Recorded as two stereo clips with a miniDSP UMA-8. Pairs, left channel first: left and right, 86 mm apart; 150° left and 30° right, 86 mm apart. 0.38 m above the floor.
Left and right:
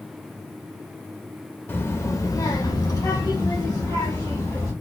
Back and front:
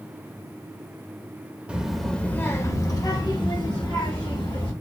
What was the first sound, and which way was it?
A child speaking, 40° left.